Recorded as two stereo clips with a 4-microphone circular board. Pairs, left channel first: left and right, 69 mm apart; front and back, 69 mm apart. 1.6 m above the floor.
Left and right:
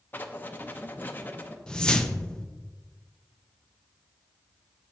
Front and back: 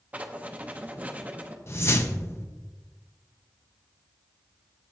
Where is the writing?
130° left, 0.8 m.